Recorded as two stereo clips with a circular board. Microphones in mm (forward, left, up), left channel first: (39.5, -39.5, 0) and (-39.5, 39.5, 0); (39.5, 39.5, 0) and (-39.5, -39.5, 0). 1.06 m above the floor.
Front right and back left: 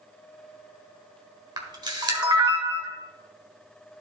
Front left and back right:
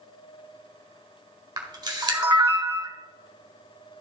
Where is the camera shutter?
Straight behind, 1.4 m.